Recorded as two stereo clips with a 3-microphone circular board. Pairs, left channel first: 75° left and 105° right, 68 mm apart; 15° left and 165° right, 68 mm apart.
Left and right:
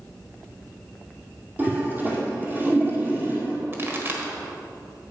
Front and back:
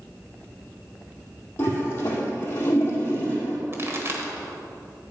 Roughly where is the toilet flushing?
Ahead right.